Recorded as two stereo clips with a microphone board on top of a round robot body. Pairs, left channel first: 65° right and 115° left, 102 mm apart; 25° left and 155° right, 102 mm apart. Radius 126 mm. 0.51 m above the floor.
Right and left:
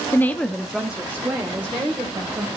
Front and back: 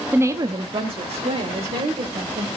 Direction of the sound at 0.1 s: 105° right.